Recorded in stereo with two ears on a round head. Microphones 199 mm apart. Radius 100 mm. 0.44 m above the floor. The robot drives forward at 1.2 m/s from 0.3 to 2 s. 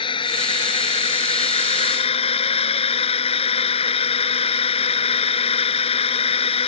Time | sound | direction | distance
0.0 | a drone | 25° left (ahead or behind) | ?